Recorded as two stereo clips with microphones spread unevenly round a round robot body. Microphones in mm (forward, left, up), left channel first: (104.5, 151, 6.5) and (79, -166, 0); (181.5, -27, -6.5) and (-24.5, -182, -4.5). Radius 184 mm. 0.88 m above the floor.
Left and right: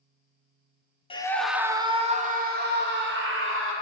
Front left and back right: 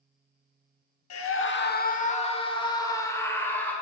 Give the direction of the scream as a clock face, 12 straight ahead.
12 o'clock.